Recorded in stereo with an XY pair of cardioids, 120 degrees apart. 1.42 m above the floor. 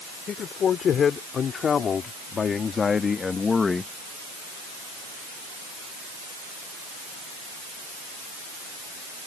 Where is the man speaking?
45° left; by 3.9 s 20° left.